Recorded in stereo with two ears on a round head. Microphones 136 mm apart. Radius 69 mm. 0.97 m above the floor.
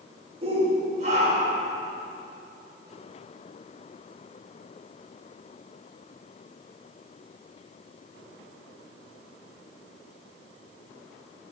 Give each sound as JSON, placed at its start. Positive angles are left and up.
{"t": 0.4, "sound": "a shout", "side_deg": -40, "distance_m": 4.0}